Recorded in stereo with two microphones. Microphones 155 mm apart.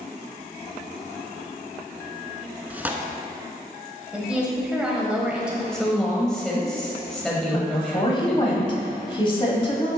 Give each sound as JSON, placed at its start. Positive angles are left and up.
{"t": 2.7, "sound": "tearing paper", "side_deg": -10, "distance_m": 0.6}
{"t": 4.1, "sound": "a woman speaking", "side_deg": -5, "distance_m": 1.3}
{"t": 5.7, "sound": "a woman speaking", "side_deg": 5, "distance_m": 1.0}
{"t": 7.5, "sound": "a woman speaking", "side_deg": 30, "distance_m": 1.2}